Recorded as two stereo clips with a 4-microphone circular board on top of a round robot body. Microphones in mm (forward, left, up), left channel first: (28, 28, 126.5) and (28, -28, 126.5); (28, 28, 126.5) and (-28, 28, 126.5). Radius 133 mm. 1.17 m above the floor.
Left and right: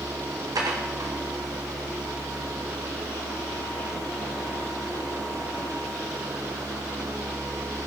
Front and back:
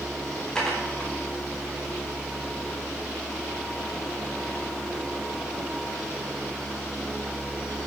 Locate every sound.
0.6 s dishes clattering: 80° right, 1.7 m